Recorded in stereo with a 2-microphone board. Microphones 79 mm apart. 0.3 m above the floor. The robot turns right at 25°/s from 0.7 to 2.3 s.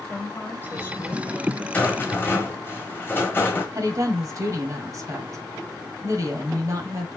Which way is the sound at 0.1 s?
25° left (ahead or behind).